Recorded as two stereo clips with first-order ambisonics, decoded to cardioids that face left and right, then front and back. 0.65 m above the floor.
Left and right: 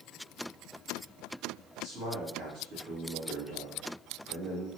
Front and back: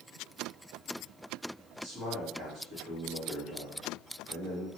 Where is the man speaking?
120° right, 1.6 m.